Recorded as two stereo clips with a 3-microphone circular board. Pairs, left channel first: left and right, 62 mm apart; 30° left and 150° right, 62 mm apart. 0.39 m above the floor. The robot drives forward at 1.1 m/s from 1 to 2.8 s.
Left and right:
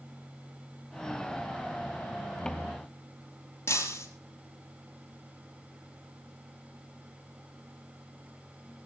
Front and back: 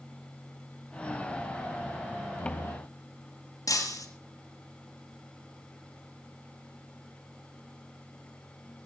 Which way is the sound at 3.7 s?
45° left.